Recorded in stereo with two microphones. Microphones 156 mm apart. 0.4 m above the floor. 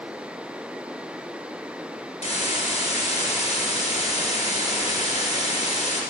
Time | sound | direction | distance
2.2 | a hiss | 55° left (ahead or behind) | 2.5 m